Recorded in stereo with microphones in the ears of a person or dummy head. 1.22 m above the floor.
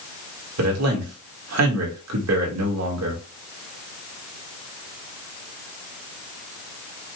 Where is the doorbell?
I don't hear a doorbell.